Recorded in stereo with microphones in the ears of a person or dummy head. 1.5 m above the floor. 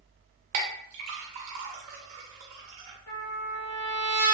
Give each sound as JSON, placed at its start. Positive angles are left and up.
{"t": 0.5, "sound": "a clink", "side_deg": -35, "distance_m": 0.6}
{"t": 3.1, "sound": "a trumpet", "side_deg": 80, "distance_m": 1.4}